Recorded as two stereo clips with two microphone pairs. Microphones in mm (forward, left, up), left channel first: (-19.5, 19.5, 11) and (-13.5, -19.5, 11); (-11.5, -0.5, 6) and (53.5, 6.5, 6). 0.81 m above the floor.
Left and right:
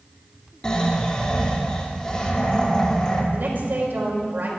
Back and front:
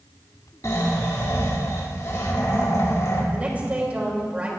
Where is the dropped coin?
No dropped coin in this recording.